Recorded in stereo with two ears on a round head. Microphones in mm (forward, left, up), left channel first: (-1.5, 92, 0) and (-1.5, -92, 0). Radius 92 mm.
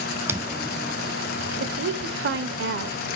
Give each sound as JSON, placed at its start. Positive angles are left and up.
{"t": 0.3, "sound": "footsteps", "side_deg": -15, "distance_m": 1.0}
{"t": 1.6, "sound": "a woman speaking", "side_deg": -55, "distance_m": 1.3}